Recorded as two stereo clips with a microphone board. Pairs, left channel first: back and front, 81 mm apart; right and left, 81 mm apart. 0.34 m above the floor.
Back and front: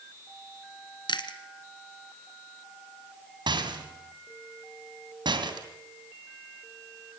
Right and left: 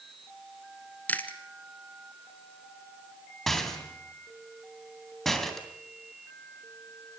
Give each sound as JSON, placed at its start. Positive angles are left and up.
{"t": 1.1, "sound": "chewing", "azimuth_deg": -160, "distance_m": 1.8}
{"t": 3.5, "sound": "a rattle", "azimuth_deg": -5, "distance_m": 3.0}